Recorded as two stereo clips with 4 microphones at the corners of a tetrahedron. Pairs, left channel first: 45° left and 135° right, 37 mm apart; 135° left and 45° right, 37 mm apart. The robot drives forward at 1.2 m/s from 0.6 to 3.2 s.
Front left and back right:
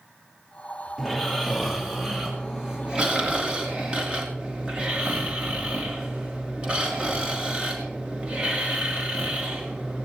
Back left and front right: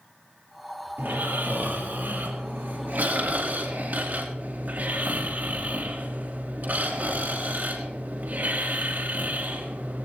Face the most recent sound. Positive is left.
turn(degrees=-75)